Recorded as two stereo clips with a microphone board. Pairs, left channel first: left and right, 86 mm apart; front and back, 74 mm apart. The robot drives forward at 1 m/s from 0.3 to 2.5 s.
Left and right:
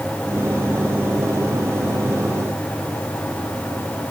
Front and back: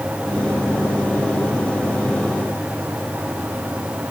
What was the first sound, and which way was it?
Only background noise.